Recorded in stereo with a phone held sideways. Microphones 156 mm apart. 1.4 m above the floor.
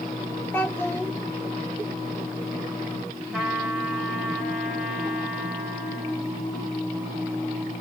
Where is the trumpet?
5° right (ahead or behind), 2 m.